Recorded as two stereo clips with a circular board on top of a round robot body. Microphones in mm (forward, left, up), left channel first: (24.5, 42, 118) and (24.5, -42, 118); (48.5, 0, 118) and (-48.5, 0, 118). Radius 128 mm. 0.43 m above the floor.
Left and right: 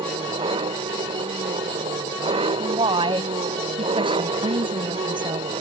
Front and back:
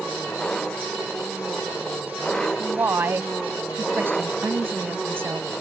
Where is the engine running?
85° right.